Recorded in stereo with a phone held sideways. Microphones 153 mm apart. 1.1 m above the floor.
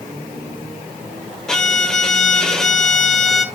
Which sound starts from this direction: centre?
A violin, at 1.5 s.